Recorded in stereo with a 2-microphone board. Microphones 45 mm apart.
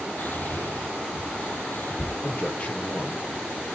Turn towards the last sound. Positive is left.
turn(degrees=30)  # may be behind; listen again after turning